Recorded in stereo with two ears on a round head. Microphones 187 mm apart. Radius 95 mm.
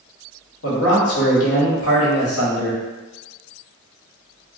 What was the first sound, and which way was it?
A man speaking, 80° left.